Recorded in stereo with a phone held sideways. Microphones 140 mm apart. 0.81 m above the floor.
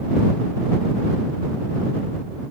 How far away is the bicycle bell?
I don't hear a bicycle bell.